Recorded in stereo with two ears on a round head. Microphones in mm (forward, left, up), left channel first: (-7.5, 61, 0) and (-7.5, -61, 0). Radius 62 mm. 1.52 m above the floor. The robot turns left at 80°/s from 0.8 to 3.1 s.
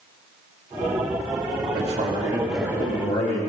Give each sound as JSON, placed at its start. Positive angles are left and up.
{"t": 1.7, "sound": "a man speaking", "azimuth_deg": -115, "distance_m": 2.0}